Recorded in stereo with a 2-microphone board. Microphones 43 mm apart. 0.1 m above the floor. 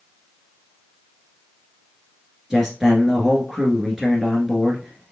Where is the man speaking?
10° right (ahead or behind), 1.3 m.